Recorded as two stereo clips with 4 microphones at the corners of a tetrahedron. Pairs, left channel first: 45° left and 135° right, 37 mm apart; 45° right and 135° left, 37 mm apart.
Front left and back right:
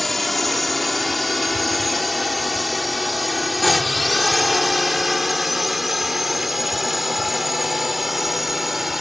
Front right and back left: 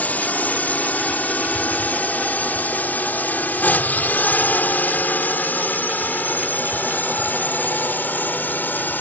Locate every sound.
0.0 s a drone: 40° right; by 9.0 s 50° right